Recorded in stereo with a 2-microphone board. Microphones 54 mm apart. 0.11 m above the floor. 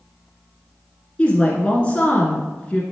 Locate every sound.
1.2 s a woman speaking: 20° left (ahead or behind), 1.3 m